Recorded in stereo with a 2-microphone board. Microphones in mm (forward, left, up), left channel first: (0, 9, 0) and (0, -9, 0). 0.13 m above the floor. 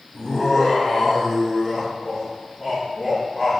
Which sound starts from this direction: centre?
Laughter, at 0.1 s.